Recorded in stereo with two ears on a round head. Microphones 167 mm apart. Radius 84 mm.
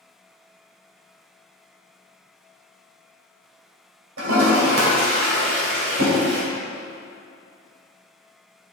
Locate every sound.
4.2 s a toilet flushing: 85° right, 2.5 m